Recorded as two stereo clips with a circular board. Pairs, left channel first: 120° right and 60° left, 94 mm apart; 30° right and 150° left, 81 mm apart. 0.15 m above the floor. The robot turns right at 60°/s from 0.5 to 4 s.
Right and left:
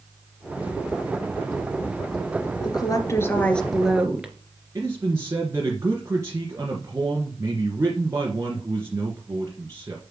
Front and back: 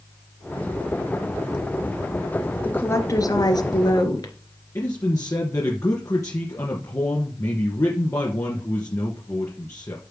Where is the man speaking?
5° left, 2.5 m.